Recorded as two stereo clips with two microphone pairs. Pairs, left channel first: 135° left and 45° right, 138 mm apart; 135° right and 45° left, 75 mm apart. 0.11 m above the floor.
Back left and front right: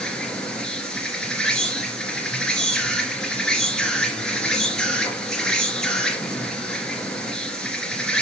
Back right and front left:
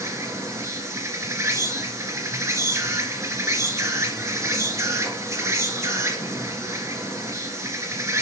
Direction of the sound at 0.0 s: 55° left.